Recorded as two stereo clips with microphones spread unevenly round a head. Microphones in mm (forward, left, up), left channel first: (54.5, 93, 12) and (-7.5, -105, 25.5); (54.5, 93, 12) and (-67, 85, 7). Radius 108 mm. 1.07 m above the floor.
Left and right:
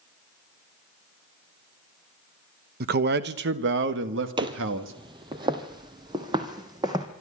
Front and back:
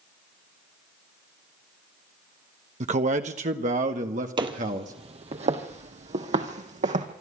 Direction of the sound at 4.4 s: 155° right.